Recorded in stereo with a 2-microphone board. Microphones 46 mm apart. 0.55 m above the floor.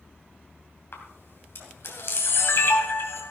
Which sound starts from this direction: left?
A camera shutter, at 0.9 s.